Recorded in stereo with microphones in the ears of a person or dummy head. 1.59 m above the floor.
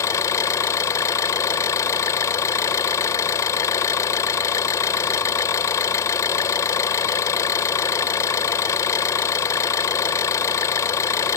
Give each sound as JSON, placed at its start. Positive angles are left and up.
{"t": 0.0, "sound": "an engine running", "side_deg": 20}